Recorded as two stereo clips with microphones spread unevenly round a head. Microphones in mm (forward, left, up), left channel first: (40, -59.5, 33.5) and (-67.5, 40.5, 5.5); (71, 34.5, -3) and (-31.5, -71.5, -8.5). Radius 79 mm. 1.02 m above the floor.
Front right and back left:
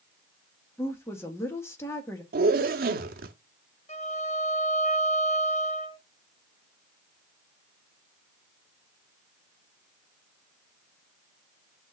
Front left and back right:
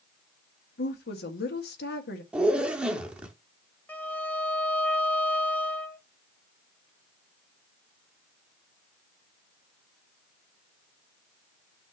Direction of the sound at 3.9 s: 25° right.